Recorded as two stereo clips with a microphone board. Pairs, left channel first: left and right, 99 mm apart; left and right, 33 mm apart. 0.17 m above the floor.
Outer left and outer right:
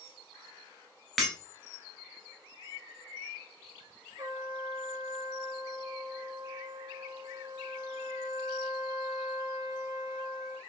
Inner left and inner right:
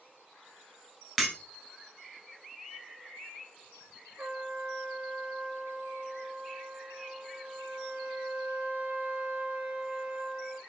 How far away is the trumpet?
About 0.6 m.